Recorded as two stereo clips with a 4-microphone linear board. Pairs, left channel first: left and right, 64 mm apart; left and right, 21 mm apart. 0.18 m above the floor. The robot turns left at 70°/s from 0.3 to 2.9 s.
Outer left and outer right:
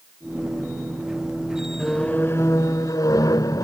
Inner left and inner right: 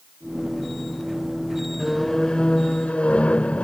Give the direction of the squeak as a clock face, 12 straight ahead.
6 o'clock.